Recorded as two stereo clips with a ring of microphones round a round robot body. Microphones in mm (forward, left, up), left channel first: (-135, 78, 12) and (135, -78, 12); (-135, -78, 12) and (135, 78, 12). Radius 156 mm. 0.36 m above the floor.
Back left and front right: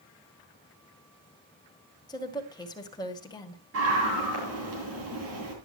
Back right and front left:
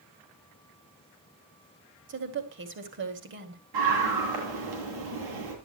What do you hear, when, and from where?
2.1 s a woman speaking: 75° left, 2 m
3.7 s a scream: 20° left, 9.5 m